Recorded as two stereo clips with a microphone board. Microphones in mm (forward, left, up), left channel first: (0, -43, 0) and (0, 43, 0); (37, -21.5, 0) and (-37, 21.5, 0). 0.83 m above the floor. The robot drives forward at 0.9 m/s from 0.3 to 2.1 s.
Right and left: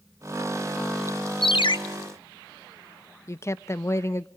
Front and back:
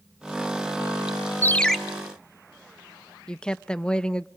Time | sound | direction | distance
1.4 | a ringtone | 90° right | 0.6 m
3.3 | a woman speaking | 105° right | 0.5 m